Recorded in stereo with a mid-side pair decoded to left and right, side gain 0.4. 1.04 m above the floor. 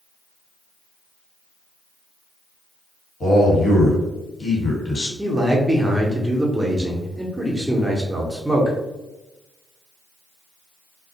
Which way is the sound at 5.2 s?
15° right.